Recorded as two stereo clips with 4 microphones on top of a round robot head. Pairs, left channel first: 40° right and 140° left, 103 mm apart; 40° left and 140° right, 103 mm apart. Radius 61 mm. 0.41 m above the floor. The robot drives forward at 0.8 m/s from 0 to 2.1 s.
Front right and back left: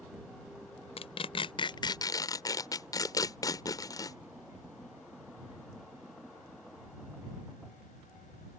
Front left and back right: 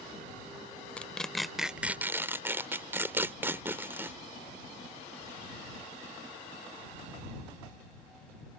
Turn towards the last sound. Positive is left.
turn(degrees=-75)